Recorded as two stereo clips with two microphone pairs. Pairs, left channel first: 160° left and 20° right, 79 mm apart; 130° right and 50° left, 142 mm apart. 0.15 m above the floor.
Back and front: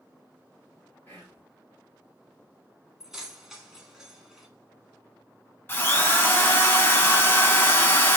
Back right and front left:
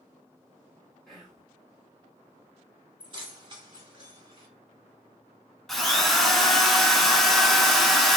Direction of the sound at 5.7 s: 135° left.